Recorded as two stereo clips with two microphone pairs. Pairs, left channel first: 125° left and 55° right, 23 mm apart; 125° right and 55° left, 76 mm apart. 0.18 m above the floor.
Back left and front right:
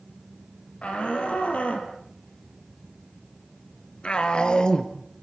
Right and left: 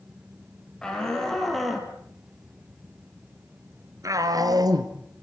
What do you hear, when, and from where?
0.8 s a shout: 155° left, 5 m; by 4.9 s 65° left, 3 m